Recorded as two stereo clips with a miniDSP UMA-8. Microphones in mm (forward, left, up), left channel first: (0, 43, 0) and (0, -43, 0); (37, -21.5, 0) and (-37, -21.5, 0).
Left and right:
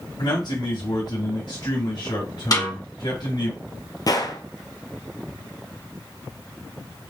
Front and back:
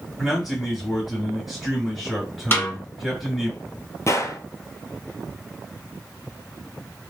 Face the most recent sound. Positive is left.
turn(degrees=50)